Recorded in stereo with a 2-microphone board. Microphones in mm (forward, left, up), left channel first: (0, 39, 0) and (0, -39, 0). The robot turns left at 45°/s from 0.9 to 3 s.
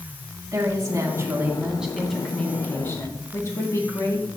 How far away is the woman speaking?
About 3 m.